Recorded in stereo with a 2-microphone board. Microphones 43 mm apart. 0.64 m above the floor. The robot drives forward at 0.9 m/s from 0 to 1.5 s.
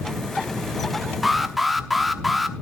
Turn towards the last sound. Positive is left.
turn(degrees=0)  # may be behind; listen again after turning